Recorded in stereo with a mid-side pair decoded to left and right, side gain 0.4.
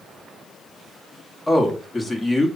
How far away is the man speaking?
About 1.5 m.